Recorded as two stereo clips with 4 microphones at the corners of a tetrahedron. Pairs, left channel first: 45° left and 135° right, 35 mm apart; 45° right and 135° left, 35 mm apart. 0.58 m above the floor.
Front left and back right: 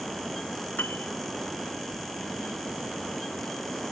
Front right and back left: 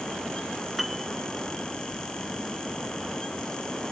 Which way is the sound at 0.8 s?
45° left.